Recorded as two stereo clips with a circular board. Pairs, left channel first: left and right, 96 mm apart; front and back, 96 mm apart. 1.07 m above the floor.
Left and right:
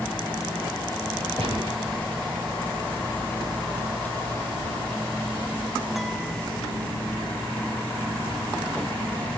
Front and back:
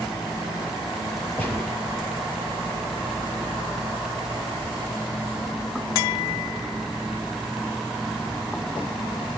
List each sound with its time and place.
1.4 s a gunshot: 75° right, 6.5 m